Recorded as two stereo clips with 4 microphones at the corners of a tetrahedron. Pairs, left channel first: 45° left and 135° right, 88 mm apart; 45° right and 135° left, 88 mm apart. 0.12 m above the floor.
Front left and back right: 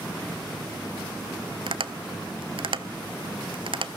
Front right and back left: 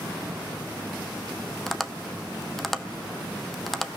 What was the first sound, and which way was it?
Tapping, 135° right.